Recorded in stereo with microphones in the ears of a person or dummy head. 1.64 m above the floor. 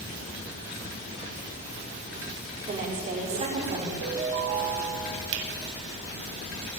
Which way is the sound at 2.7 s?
40° right (ahead or behind).